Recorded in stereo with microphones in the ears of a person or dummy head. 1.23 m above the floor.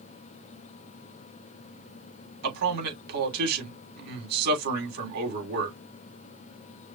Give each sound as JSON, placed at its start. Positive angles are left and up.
{"t": 2.4, "sound": "a man speaking", "side_deg": -55, "distance_m": 3.5}